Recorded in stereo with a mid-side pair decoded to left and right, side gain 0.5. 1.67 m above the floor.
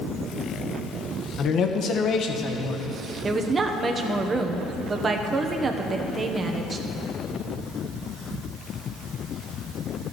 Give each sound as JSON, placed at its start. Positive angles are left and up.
{"t": 1.4, "sound": "a man speaking", "azimuth_deg": 55, "distance_m": 1.2}
{"t": 3.2, "sound": "a woman speaking", "azimuth_deg": -40, "distance_m": 1.1}